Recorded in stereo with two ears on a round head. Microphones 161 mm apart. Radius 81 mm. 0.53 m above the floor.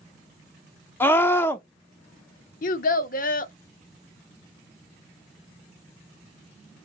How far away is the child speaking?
About 0.6 m.